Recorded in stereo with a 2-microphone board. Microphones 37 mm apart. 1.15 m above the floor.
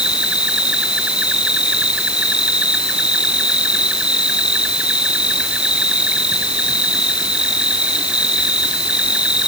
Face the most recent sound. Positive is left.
turn(degrees=-30)  # may be behind; listen again after turning